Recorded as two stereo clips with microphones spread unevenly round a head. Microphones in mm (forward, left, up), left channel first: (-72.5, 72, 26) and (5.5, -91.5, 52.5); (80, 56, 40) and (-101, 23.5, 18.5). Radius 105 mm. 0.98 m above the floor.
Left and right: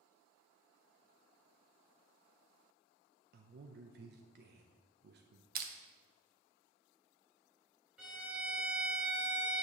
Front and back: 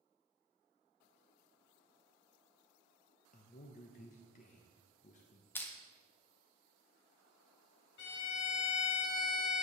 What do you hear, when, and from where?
3.3 s a man speaking: 35° right, 0.6 m
5.5 s crushing: 70° right, 0.8 m
8.0 s a violin: 20° left, 1.1 m